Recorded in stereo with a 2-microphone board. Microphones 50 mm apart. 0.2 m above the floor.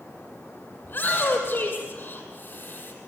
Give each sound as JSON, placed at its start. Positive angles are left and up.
{"t": 0.8, "sound": "a shout", "side_deg": 35, "distance_m": 6.5}